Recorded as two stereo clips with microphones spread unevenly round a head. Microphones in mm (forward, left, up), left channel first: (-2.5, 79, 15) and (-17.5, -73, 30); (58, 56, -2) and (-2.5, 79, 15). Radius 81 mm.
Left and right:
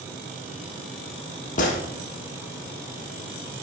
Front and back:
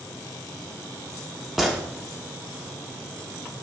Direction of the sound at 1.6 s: 95° left.